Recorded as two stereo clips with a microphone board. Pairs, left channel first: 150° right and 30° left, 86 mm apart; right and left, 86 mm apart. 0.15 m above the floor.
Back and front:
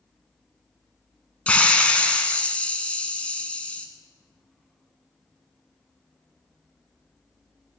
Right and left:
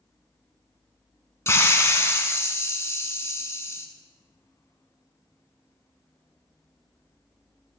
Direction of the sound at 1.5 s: 90° right.